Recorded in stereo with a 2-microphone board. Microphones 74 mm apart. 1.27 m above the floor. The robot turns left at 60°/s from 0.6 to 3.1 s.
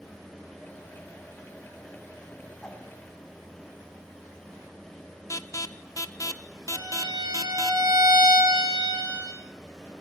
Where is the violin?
75° right (ahead or behind), 9 m.